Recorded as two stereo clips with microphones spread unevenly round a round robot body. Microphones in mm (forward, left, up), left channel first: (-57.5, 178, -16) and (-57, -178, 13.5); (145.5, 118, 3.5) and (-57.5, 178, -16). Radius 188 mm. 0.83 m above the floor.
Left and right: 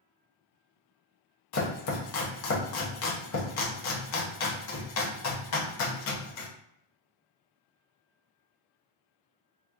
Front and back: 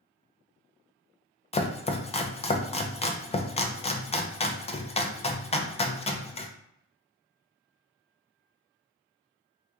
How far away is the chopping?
About 0.5 m.